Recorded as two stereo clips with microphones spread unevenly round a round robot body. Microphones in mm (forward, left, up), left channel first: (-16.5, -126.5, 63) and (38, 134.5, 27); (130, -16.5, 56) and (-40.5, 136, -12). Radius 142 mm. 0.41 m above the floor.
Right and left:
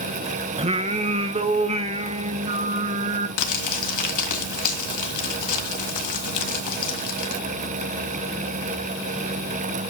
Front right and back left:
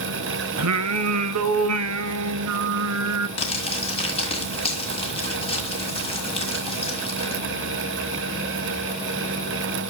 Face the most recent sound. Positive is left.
turn(degrees=-115)